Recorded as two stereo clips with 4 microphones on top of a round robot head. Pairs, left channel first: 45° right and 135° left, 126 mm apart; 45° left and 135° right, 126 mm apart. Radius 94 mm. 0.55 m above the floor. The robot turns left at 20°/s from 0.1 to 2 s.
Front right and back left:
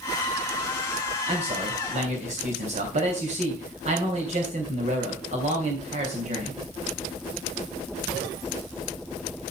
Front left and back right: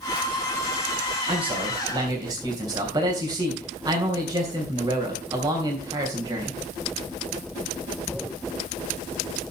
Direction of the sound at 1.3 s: Straight behind.